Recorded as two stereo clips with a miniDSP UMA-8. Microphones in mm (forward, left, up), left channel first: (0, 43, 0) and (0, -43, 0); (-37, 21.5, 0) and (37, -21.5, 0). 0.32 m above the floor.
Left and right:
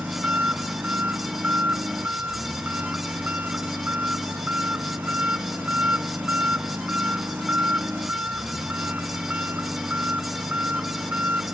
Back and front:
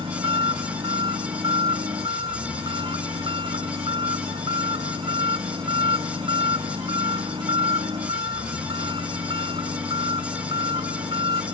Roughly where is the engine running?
Ahead.